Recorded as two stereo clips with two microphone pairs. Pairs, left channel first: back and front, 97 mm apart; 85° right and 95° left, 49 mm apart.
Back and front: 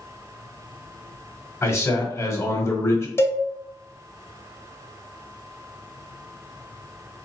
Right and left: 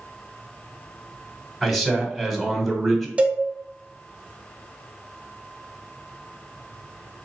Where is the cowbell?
135° left, 0.6 m.